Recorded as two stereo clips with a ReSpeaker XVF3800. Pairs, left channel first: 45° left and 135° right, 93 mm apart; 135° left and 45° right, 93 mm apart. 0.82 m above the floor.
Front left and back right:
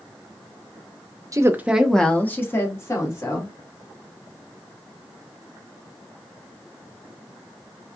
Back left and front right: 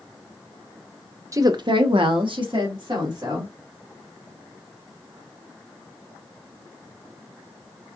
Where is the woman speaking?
95° right, 0.7 m; by 3.5 s 5° right, 2 m.